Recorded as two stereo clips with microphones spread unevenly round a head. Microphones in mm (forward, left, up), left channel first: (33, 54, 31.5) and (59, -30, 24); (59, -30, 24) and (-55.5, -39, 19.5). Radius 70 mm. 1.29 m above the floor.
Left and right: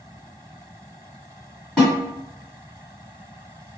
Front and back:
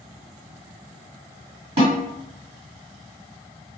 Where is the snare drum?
165° right, 1.6 m.